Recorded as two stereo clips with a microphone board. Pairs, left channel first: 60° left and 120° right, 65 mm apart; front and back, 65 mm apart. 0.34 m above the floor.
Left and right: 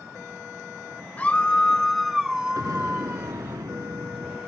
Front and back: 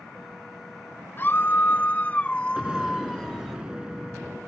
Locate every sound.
1.2 s a scream: 15° left; by 3.6 s 80° right
2.6 s an explosion: 100° right